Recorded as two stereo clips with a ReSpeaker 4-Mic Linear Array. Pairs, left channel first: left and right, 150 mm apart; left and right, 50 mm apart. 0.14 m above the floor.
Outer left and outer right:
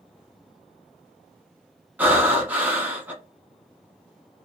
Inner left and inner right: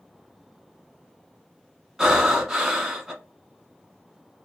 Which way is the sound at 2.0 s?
10° right (ahead or behind).